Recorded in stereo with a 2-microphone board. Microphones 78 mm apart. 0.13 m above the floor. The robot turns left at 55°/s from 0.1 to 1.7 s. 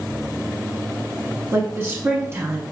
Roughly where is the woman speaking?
Right.